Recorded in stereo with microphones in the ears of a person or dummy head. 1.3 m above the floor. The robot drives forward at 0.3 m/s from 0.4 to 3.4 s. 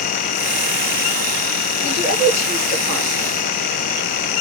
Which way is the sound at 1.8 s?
45° right (ahead or behind).